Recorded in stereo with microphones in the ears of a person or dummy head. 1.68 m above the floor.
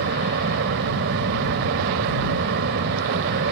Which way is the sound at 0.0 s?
65° right (ahead or behind).